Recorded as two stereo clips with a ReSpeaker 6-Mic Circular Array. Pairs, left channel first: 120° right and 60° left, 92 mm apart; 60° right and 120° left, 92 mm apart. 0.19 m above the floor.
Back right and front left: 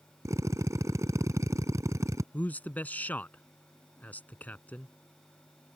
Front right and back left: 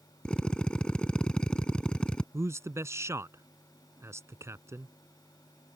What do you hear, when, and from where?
0.2 s a drill: 20° left
2.3 s a man speaking: 170° left